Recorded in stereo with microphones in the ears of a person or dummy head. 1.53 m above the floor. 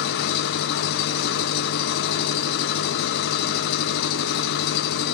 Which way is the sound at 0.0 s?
60° left (ahead or behind).